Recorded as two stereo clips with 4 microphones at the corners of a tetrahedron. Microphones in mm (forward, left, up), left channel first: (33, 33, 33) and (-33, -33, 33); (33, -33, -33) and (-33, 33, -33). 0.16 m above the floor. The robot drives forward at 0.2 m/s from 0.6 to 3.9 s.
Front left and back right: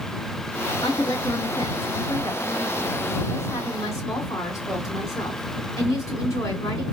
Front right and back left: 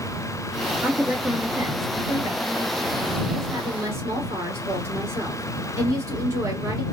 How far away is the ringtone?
No ringtone in this recording.